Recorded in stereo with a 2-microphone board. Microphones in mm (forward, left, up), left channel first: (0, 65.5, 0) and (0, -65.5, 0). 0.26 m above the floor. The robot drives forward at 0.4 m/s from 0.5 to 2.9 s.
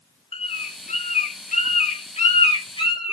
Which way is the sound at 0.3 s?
55° left (ahead or behind).